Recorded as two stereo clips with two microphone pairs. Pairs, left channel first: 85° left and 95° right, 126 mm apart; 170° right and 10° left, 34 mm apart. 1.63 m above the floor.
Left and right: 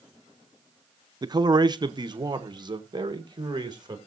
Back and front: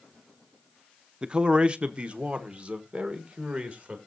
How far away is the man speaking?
About 0.6 m.